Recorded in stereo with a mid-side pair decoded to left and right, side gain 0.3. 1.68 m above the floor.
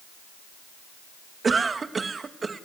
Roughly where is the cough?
Ahead right.